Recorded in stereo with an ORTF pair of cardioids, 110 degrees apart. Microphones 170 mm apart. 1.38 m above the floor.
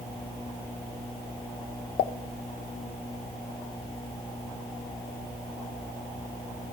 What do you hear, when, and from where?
2.0 s a pop: 65° left, 0.5 m